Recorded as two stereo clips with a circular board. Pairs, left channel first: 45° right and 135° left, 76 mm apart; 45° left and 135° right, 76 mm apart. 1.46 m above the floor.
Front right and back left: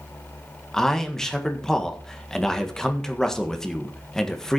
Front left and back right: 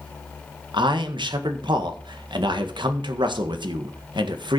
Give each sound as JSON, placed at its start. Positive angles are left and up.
{"t": 0.7, "sound": "a man speaking", "azimuth_deg": -130, "distance_m": 1.6}